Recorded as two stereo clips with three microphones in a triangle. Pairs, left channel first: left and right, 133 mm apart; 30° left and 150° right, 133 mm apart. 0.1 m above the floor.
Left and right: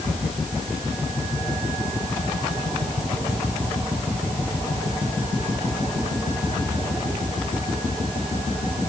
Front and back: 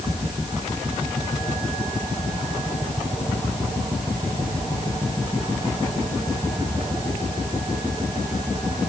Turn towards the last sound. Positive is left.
No sound to turn to.